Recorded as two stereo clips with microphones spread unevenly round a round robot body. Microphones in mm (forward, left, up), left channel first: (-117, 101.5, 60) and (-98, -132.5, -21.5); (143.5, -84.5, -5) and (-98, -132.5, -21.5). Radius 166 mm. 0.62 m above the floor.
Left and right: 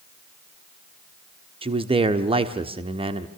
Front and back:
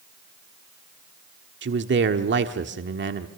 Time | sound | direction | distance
1.6 | a man speaking | 135° right | 1.3 m